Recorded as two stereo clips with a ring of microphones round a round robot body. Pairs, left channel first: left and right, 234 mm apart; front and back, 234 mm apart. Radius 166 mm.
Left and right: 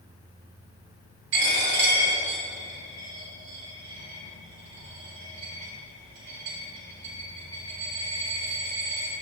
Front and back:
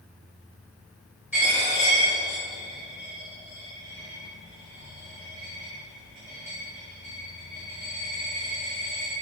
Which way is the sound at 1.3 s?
95° right.